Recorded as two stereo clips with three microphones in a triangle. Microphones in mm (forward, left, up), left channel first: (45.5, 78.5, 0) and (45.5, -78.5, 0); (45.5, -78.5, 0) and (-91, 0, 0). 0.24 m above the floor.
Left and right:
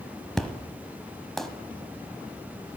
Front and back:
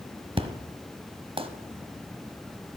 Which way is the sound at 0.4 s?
175° left.